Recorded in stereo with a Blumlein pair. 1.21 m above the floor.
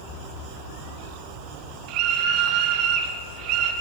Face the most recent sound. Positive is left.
turn(degrees=-40)